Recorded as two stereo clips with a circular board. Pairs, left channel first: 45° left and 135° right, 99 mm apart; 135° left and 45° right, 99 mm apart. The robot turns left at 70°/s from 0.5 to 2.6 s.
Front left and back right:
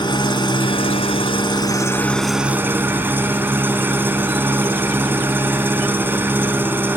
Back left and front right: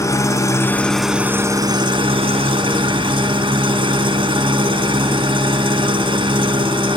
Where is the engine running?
80° left, 2.5 m; by 7.0 s 65° right, 2.5 m.